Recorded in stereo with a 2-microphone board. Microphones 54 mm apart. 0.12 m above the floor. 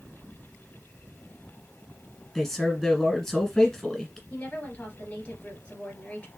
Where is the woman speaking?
25° left (ahead or behind), 2.5 m.